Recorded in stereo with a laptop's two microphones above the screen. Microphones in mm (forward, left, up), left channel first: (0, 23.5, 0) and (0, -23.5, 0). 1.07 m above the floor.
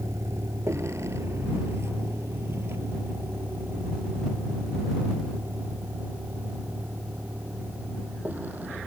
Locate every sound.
0.0 s a vehicle: 70° right (ahead or behind); by 8.9 s 35° right (ahead or behind)